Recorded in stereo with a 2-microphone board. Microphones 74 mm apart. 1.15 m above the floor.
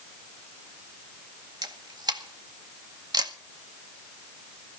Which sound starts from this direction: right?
A camera shutter, at 1.6 s.